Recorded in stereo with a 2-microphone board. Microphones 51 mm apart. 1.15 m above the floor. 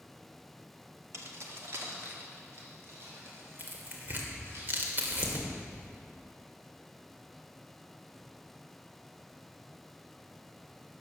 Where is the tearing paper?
40° right (ahead or behind), 2 m.